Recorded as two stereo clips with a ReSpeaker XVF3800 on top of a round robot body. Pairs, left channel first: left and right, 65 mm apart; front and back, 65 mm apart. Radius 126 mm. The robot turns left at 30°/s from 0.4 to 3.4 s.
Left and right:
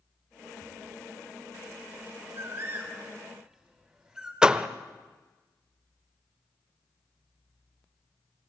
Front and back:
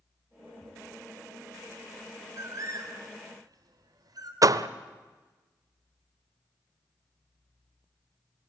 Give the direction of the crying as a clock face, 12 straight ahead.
No crying in this recording.